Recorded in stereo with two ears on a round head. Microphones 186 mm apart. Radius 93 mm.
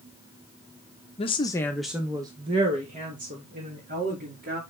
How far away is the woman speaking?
About 1.0 m.